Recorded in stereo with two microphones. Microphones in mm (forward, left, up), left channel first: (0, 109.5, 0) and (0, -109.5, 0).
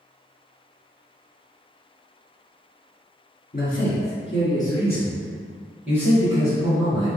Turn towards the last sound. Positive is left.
turn(degrees=-20)  # may be behind; listen again after turning